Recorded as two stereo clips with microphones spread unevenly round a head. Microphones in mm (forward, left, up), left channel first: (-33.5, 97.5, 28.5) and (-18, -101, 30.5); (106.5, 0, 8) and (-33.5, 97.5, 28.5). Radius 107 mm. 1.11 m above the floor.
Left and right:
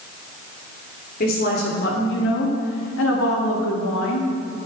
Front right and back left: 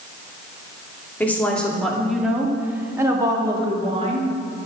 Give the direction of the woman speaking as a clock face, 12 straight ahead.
10 o'clock.